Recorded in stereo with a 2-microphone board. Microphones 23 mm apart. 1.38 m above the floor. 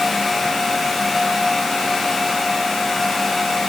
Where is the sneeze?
No sneeze in this recording.